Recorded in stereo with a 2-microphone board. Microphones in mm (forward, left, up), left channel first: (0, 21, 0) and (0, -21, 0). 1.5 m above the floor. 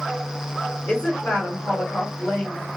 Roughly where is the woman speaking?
Left.